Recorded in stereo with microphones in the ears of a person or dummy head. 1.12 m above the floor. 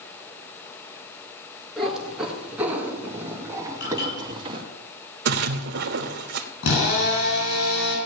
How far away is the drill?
About 5.5 m.